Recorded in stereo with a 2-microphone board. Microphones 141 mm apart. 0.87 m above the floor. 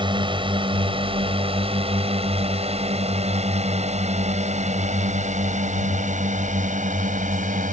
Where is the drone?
35° right (ahead or behind); by 7.7 s 60° right (ahead or behind).